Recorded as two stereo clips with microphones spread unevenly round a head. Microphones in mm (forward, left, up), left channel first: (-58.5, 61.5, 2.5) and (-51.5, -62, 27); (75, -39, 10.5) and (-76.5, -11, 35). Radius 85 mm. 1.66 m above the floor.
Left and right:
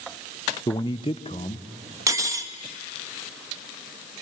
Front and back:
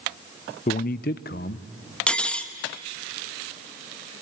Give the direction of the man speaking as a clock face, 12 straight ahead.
11 o'clock.